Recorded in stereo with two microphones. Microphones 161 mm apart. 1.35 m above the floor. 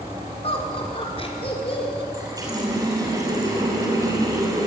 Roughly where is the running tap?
Right.